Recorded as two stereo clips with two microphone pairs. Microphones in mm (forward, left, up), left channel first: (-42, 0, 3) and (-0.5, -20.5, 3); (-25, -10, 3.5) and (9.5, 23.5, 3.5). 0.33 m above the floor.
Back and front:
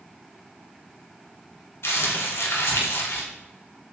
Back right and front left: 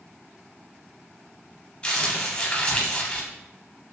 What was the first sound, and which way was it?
Crumpling, 155° left.